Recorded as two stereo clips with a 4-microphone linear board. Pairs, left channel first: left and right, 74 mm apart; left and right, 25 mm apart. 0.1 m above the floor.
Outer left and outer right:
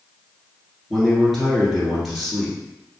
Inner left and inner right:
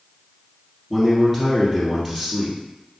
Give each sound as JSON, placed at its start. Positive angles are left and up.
{"t": 0.9, "sound": "a man speaking", "side_deg": 0, "distance_m": 1.5}